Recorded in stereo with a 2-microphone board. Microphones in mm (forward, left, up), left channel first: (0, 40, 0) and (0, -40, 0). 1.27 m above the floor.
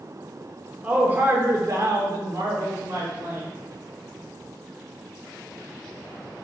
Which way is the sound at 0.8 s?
15° right (ahead or behind).